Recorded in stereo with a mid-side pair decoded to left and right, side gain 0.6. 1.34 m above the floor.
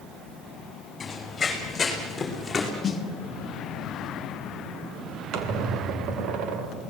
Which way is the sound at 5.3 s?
65° right.